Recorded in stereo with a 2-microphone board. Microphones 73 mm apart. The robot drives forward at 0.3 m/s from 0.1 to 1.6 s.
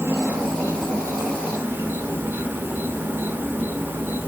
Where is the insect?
35° right (ahead or behind), 0.9 m; by 4.3 s 25° right (ahead or behind), 1.1 m.